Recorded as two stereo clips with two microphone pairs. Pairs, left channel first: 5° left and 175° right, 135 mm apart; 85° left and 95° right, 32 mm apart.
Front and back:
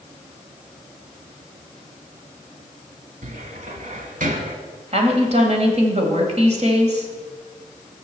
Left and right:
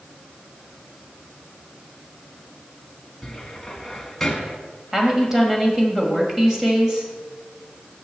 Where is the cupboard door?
165° left, 1.1 m.